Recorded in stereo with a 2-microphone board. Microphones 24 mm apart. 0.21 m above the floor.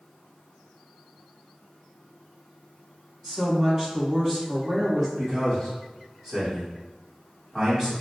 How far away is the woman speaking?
About 1.7 m.